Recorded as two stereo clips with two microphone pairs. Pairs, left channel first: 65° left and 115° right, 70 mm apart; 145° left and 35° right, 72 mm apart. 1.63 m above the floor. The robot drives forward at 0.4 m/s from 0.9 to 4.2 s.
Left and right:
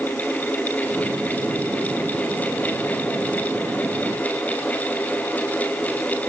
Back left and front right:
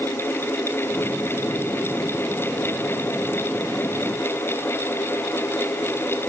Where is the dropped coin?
I don't hear a dropped coin.